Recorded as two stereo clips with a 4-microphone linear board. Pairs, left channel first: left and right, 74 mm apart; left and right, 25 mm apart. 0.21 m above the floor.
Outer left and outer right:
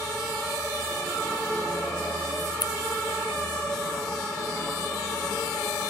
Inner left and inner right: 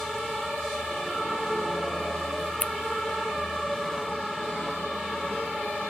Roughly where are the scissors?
Left.